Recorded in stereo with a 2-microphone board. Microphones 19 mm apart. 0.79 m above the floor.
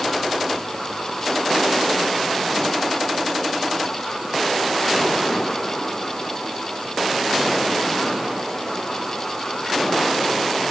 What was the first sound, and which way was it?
Only background noise.